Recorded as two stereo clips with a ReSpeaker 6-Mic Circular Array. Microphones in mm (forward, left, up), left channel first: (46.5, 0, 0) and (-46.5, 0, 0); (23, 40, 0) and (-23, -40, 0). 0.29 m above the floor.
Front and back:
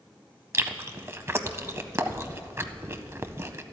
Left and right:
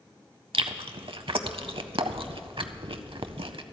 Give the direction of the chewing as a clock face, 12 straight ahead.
4 o'clock.